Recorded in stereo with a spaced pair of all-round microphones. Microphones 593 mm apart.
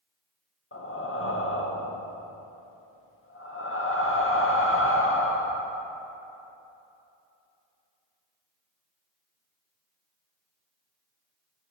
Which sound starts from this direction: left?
Breathing, at 0.7 s.